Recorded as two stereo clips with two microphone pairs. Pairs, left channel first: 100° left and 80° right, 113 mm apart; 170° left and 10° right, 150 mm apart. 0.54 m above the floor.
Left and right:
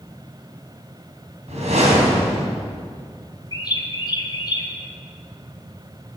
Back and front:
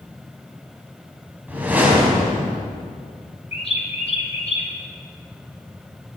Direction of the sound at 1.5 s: 90° right.